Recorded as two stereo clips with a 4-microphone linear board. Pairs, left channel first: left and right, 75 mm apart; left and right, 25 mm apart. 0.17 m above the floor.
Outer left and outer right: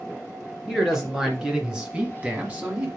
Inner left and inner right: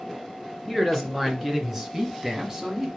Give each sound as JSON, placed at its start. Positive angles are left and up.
{"t": 0.7, "sound": "a man speaking", "side_deg": -5, "distance_m": 2.5}